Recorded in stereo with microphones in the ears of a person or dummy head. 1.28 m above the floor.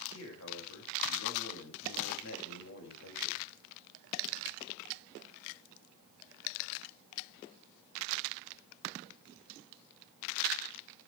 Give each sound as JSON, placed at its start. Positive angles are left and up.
{"t": 0.1, "sound": "a man speaking", "side_deg": 70, "distance_m": 5.5}